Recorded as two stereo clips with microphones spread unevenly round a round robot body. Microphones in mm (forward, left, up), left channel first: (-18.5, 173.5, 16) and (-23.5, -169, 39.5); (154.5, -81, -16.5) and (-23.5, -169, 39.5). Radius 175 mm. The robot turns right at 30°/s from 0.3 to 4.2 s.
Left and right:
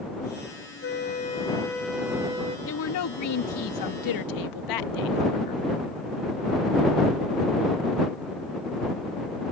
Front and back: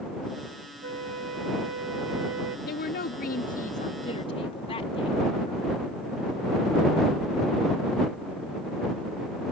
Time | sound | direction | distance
0.8 | a flute | 145° left | ?
2.7 | a woman speaking | 40° left | ?